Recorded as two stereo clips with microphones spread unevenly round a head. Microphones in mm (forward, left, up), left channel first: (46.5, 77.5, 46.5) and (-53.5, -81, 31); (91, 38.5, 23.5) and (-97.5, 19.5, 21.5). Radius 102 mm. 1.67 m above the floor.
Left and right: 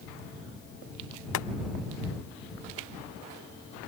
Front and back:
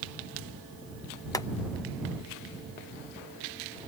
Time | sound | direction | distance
1.3 | boiling | 75° left | ?